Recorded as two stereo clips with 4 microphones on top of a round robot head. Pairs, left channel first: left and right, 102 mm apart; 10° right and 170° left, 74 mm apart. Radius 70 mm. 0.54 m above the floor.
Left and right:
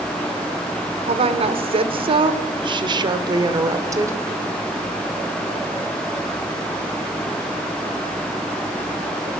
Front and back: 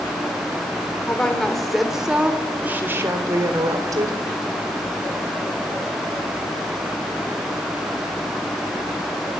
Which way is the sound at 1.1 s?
85° right.